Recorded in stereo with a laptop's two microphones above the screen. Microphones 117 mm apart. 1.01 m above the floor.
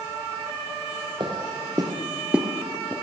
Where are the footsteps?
40° right (ahead or behind), 1.6 m; by 2.9 s 15° left (ahead or behind), 1.2 m.